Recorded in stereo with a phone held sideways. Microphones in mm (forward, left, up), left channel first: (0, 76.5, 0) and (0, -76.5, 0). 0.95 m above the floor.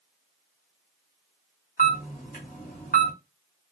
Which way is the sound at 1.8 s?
65° left (ahead or behind).